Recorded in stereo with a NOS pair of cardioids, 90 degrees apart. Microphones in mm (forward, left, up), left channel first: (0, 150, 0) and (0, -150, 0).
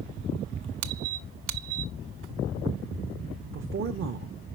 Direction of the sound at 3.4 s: 40° right.